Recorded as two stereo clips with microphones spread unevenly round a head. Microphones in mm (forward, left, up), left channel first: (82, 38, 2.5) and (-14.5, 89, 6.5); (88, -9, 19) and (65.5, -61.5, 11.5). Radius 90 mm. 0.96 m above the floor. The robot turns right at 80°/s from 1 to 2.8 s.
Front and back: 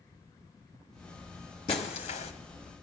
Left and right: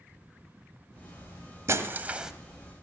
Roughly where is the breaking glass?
Right.